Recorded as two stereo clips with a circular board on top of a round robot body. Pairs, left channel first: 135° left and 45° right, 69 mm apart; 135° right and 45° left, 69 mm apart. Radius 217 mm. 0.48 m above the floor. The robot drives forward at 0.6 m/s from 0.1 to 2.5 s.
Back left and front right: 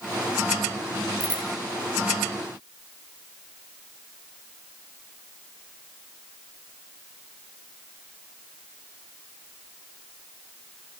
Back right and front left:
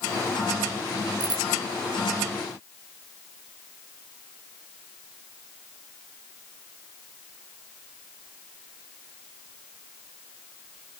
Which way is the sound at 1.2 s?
30° left.